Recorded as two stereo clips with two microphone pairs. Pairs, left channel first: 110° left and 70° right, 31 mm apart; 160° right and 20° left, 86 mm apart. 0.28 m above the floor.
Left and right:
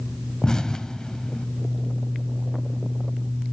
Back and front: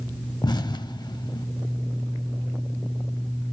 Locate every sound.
0.4 s an explosion: straight behind, 0.5 m